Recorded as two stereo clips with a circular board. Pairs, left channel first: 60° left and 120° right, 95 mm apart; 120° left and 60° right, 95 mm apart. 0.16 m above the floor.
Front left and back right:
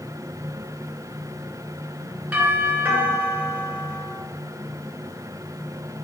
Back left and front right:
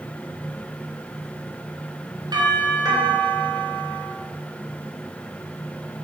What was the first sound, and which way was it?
A doorbell, 55° right.